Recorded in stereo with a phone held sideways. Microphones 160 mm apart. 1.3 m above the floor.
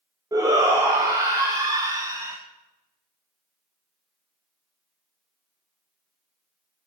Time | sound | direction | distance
0.3 | a shout | 25° right (ahead or behind) | 0.9 m